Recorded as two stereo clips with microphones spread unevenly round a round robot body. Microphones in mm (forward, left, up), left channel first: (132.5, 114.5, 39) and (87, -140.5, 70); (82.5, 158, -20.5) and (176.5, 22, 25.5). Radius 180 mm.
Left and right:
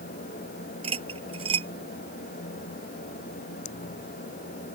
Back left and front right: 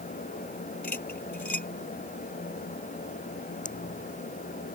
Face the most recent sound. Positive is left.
turn(degrees=85)